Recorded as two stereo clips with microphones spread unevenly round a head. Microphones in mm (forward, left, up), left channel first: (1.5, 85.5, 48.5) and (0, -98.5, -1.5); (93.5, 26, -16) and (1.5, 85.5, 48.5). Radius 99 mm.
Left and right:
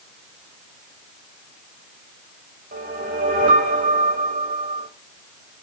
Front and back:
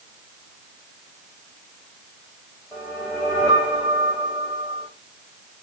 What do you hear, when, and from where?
2.7 s a whoosh: 140° right, 3.5 m